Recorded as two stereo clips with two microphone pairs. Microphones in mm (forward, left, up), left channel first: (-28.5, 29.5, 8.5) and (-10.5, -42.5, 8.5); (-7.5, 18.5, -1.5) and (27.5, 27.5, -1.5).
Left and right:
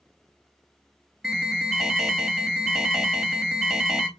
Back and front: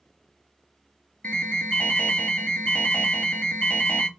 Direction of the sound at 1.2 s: 160° right.